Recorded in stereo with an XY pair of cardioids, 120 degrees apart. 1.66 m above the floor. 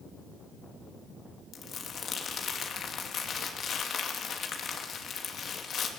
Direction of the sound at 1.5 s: 40° left.